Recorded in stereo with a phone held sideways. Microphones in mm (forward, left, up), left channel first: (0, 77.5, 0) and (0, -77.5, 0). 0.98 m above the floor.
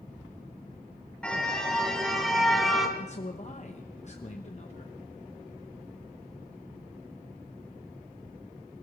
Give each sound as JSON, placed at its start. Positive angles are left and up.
{"t": 1.2, "sound": "a car horn", "side_deg": 5, "distance_m": 2.0}
{"t": 3.0, "sound": "a man speaking", "side_deg": 45, "distance_m": 0.9}